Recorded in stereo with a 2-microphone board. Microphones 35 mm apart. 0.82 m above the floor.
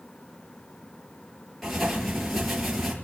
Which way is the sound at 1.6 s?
5° right (ahead or behind).